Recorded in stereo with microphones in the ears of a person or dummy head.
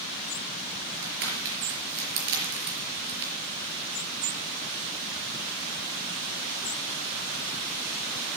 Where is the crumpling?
65° right (ahead or behind), 5 m.